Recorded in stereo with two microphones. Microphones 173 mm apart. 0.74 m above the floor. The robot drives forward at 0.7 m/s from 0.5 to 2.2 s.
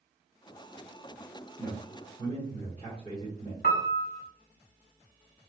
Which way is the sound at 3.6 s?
60° left (ahead or behind).